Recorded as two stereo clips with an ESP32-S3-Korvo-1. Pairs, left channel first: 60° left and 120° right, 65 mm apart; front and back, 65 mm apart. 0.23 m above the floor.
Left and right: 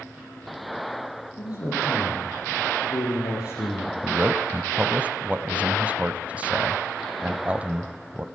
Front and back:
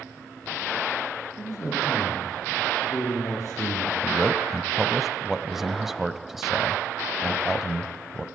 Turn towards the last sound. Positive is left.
turn(degrees=-105)